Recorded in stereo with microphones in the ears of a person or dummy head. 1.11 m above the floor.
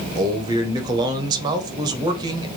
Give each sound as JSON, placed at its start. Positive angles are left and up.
{"t": 0.1, "sound": "a man speaking", "side_deg": -20, "distance_m": 0.7}